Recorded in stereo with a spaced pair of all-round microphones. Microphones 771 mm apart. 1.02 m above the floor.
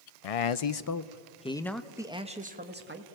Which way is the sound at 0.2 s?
55° left (ahead or behind).